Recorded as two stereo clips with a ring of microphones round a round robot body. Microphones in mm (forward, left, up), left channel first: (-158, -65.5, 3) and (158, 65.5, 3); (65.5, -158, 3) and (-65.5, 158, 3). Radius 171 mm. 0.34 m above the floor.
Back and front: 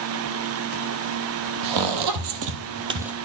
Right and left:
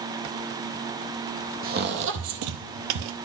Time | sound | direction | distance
1.6 | footsteps | 50° left | 1.0 m